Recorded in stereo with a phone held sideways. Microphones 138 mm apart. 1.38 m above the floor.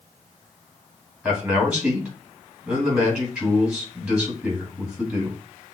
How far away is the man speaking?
About 2.5 m.